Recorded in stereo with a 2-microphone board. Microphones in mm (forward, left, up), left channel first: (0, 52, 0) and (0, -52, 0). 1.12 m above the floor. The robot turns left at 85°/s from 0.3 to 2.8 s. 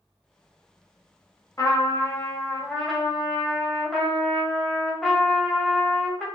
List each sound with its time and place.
1.6 s a trumpet: 110° left, 1.0 m; by 6.2 s 5° left, 1.0 m